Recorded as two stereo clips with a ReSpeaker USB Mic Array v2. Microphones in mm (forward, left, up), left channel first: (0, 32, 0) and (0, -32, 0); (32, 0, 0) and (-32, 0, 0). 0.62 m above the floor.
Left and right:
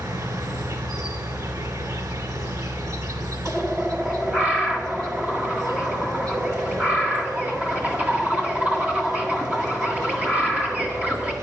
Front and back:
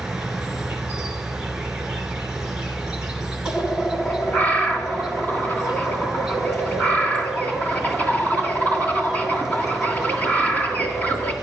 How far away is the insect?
About 1.3 m.